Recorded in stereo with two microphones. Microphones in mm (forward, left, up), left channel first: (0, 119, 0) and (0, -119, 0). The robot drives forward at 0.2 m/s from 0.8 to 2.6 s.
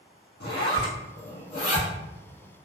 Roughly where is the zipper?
Left.